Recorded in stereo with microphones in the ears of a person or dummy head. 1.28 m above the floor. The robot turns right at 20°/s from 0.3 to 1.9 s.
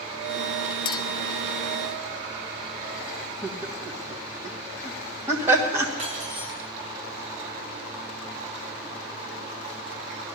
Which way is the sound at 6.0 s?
35° right (ahead or behind).